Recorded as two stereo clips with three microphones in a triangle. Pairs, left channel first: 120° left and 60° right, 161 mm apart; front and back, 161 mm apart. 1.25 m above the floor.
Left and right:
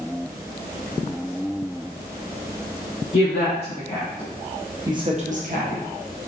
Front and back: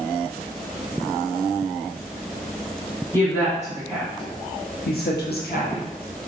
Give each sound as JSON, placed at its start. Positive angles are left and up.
{"t": 3.1, "sound": "a woman speaking", "azimuth_deg": 80, "distance_m": 1.0}